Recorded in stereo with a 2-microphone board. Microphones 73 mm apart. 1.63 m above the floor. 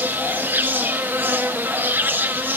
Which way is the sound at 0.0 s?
25° right (ahead or behind).